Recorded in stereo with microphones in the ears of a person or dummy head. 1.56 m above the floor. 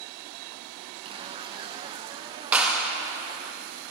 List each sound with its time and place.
1.1 s a zipper: 25° right (ahead or behind), 0.6 m
2.5 s a clap: 5° right (ahead or behind), 1.8 m